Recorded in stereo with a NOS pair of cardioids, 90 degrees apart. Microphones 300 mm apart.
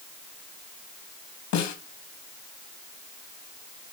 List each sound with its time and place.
1.5 s a snare drum: 65° left, 3.5 m